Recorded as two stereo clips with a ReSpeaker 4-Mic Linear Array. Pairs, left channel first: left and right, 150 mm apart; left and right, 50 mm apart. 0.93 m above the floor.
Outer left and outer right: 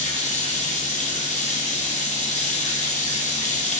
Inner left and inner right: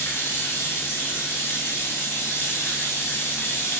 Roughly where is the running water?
Left.